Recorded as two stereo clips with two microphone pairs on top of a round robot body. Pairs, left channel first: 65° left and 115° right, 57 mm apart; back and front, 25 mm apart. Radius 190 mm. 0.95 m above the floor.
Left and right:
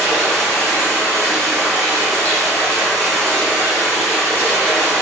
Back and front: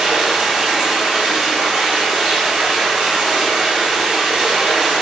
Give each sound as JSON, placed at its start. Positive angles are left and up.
{"t": 0.0, "sound": "running water", "azimuth_deg": 0, "distance_m": 1.9}